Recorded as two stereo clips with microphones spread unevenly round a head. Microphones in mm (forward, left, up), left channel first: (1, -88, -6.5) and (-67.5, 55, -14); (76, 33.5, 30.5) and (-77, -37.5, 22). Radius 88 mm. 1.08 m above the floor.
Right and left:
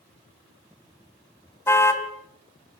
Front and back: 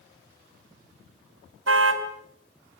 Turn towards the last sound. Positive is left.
turn(degrees=-140)